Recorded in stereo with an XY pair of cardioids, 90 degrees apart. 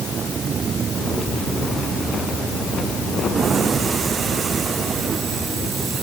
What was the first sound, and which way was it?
Only background noise.